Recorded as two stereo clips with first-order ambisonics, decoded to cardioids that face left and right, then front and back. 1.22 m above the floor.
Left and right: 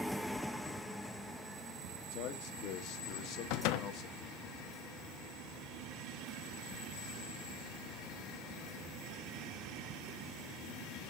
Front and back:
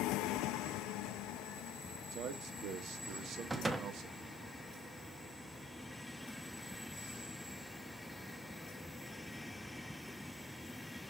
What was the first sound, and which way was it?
A man speaking, 130° left.